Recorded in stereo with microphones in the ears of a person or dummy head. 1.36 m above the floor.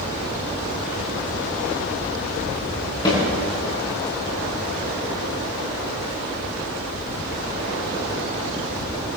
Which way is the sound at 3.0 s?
25° left (ahead or behind).